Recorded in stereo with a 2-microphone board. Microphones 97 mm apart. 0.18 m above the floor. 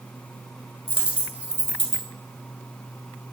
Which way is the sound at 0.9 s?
10° right (ahead or behind).